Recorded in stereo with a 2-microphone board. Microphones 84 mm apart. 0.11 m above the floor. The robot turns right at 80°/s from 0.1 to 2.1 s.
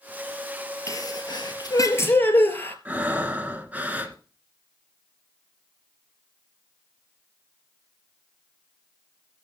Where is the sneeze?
50° left, 2 m; by 2.8 s 150° left, 2 m.